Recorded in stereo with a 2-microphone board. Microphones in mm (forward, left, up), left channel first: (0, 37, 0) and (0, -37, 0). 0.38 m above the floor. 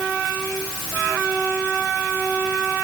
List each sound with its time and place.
Only background noise.